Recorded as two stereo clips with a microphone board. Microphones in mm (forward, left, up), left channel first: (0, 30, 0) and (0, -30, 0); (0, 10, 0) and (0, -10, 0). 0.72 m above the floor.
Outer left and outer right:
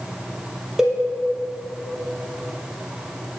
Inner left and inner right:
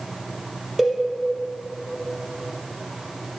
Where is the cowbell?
10° right (ahead or behind), 3 m.